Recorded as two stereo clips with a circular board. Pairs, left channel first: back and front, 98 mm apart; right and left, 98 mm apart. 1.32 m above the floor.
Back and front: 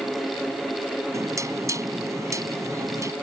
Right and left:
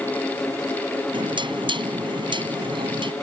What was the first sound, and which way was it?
Knocking, 55° left.